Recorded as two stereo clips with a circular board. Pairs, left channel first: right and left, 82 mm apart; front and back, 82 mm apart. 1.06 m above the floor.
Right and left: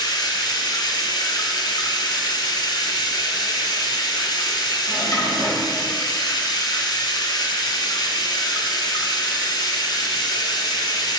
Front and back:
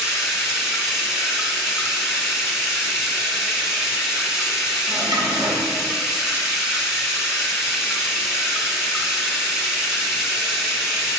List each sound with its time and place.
0.0 s running water: 95° right, 1.8 m
4.9 s a drawer: 140° right, 2.5 m